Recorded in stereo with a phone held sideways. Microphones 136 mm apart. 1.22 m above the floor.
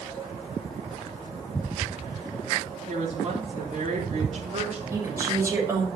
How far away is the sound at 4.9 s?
About 5.5 m.